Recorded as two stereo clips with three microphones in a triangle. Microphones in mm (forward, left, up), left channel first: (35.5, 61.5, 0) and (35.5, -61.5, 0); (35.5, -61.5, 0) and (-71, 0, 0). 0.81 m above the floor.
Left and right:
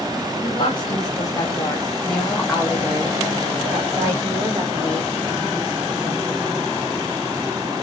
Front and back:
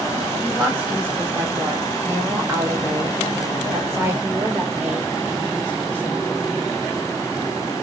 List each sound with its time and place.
0.4 s a woman speaking: 75° left, 1.3 m; by 6.8 s 135° right, 3 m